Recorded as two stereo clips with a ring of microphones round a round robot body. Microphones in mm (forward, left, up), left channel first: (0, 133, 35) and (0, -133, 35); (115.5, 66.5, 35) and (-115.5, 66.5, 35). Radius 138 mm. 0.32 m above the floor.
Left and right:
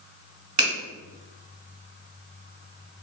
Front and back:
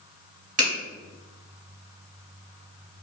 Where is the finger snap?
140° right, 1.5 m.